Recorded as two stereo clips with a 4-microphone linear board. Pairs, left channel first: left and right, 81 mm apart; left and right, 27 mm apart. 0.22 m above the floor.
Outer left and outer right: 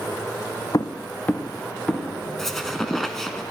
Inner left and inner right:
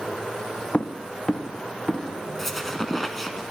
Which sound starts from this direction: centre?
A squeak, at 2.4 s.